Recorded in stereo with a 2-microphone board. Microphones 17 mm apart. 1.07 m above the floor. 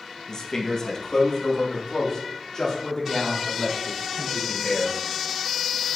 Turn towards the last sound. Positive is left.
turn(degrees=35)  # may be behind; listen again after turning